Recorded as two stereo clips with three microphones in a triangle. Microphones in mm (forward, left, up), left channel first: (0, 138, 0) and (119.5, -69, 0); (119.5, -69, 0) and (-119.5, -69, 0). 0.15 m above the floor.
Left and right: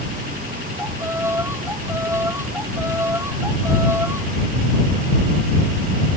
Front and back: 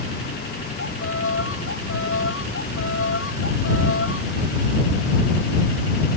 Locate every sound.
0.8 s a violin: 20° left